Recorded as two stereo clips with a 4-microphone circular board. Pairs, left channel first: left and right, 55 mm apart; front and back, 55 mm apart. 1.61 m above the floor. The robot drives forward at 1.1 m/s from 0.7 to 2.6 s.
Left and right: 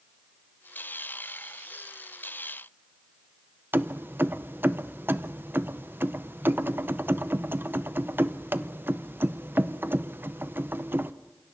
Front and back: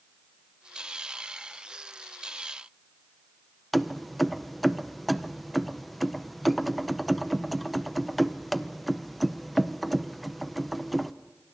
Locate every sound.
3.7 s keys jangling: 90° right, 0.6 m